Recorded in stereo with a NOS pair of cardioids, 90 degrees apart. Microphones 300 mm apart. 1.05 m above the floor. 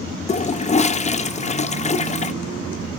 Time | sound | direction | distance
0.3 | a toilet flushing | 20° left | 0.7 m